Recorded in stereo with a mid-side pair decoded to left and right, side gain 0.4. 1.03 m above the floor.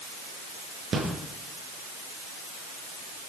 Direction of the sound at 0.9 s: 55° right.